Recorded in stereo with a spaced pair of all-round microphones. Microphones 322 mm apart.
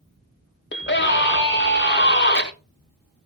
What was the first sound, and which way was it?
A scream, 35° left (ahead or behind).